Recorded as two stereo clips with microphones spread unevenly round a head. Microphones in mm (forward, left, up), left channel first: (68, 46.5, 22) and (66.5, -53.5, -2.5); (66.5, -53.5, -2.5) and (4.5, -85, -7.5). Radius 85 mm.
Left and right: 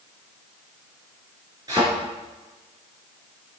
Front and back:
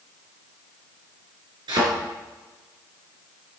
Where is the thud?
165° right, 3 m.